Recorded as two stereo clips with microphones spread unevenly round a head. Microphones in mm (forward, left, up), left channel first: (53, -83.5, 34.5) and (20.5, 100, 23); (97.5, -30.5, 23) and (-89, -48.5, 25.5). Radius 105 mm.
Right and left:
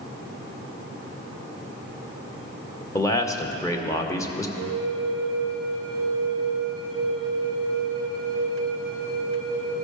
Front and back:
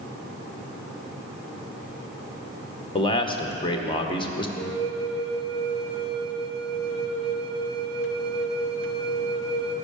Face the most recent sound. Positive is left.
turn(degrees=-150)